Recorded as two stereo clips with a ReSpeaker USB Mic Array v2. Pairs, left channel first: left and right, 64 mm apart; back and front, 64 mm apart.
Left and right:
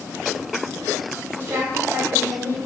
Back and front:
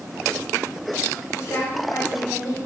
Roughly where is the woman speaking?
Behind right.